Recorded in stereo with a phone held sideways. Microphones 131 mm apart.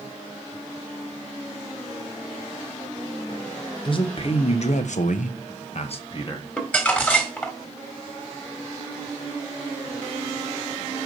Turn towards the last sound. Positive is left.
turn(degrees=10)  # may be behind; listen again after turning